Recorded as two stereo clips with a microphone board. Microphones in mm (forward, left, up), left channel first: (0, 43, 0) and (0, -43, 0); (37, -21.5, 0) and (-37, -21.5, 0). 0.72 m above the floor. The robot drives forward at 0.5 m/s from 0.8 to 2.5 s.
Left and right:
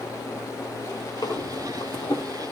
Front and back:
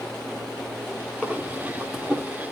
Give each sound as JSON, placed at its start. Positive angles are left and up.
{"t": 1.2, "sound": "breathing", "azimuth_deg": 80, "distance_m": 1.9}